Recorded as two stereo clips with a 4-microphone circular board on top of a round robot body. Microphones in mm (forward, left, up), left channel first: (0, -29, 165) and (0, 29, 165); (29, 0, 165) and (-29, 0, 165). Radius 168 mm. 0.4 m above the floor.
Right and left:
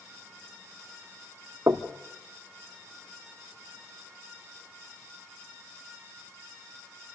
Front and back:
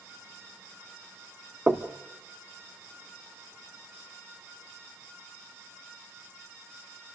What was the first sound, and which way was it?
Knocking, 115° left.